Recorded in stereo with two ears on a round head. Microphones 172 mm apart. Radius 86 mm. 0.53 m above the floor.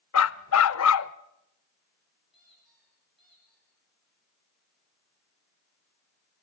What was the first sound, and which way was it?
A dog barking, 80° left.